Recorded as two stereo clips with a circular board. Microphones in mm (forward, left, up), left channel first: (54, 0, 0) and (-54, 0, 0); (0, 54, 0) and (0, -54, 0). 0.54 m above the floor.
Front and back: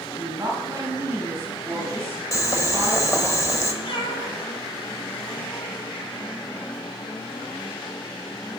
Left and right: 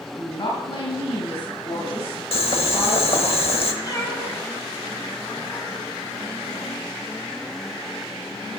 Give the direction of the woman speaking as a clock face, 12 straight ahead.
8 o'clock.